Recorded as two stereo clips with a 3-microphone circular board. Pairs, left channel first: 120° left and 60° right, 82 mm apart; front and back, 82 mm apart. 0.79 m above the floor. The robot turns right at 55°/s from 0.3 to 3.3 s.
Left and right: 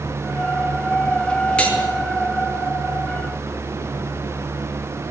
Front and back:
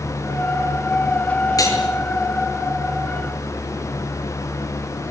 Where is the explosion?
No explosion in this recording.